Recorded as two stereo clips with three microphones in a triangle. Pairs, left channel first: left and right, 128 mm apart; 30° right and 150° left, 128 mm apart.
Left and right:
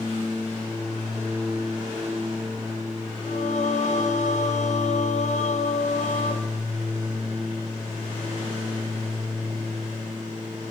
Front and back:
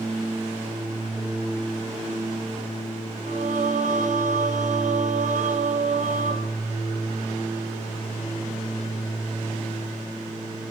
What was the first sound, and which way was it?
Singing, 120° left.